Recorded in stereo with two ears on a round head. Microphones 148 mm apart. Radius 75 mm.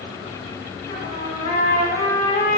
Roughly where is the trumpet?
Left.